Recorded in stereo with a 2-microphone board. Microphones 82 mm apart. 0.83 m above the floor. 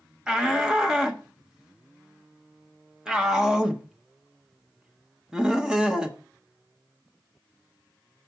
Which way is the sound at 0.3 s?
10° right (ahead or behind).